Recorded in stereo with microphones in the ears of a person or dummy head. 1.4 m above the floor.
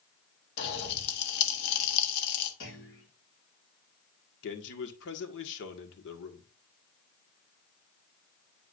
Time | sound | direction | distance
0.6 | a pop | 55° left (ahead or behind) | 1.7 m
2.6 | a clunk | 60° left (ahead or behind) | 3.5 m
4.4 | a man speaking | 65° left (ahead or behind) | 1.8 m